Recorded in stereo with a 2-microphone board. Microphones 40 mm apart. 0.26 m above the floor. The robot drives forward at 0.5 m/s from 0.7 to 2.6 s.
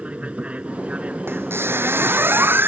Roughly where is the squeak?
Right.